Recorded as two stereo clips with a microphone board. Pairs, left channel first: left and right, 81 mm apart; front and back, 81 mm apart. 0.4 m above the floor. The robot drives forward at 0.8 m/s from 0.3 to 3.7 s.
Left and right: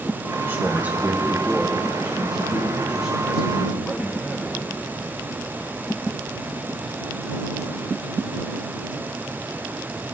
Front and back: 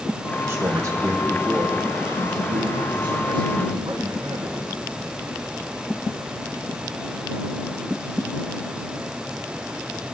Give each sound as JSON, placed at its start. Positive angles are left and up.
{"t": 0.5, "sound": "a man speaking", "azimuth_deg": -140, "distance_m": 1.0}